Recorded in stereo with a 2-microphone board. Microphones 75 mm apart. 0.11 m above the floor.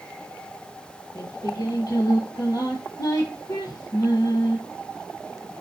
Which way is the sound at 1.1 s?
55° left (ahead or behind).